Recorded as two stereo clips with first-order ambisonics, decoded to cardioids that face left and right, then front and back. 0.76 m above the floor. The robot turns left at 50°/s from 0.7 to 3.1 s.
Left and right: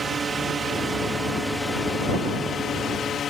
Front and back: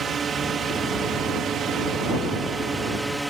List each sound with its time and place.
0.0 s a drone: 140° right; by 3.3 s 100° left